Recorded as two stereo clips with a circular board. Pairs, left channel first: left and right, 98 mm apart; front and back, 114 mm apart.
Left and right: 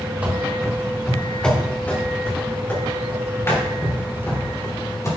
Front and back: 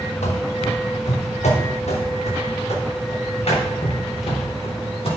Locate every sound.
0.2 s running footsteps: 15° right, 2.5 m; by 5.1 s 30° left, 7 m